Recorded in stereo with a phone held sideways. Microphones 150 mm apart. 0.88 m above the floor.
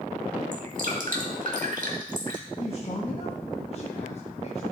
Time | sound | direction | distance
0.5 | dripping | 60° right (ahead or behind) | 1.7 m
2.6 | a man speaking | 45° left (ahead or behind) | 0.9 m